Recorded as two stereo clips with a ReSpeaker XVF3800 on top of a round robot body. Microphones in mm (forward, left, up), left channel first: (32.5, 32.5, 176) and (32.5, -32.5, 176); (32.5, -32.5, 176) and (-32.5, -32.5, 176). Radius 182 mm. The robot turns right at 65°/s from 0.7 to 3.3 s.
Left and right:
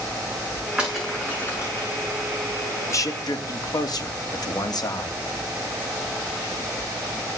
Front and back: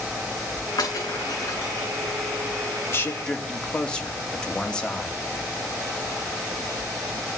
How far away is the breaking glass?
About 9 m.